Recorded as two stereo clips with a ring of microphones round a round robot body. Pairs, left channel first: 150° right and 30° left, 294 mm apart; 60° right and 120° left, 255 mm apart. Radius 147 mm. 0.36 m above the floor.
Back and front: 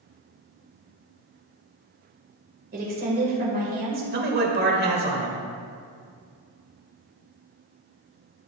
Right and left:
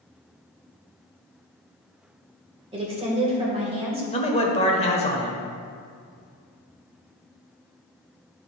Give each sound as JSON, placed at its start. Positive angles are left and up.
{"t": 2.7, "sound": "a woman speaking", "azimuth_deg": 70, "distance_m": 1.7}
{"t": 4.1, "sound": "a man speaking", "azimuth_deg": -5, "distance_m": 1.3}